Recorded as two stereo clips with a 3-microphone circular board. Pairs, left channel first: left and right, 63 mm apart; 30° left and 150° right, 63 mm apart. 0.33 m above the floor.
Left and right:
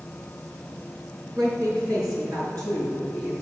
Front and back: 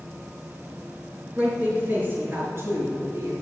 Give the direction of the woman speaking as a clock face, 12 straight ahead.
3 o'clock.